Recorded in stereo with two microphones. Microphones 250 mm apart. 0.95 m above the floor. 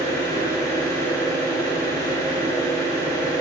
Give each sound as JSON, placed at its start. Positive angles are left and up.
{"t": 0.0, "sound": "an engine running", "side_deg": 15, "distance_m": 2.5}